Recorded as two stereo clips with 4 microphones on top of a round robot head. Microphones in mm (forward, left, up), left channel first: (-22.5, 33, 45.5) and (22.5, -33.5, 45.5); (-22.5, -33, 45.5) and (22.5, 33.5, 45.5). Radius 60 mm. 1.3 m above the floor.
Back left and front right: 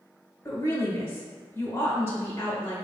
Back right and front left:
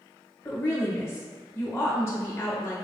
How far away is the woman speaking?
About 1.5 m.